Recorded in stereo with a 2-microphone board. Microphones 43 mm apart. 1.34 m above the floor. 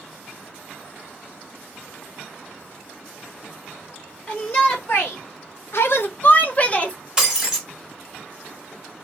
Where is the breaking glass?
10° right (ahead or behind), 1.2 m.